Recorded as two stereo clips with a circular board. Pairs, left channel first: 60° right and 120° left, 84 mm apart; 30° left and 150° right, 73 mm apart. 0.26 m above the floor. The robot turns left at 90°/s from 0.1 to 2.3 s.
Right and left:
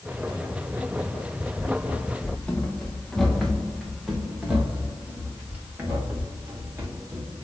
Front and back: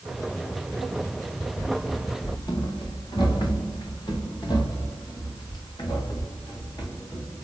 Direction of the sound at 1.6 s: 70° left.